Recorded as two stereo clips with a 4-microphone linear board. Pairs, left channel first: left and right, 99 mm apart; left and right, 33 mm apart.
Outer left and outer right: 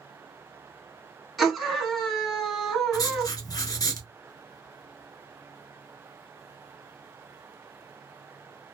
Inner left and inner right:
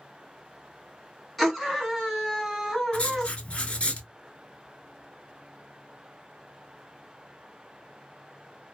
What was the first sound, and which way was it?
A scream, centre (ahead or behind).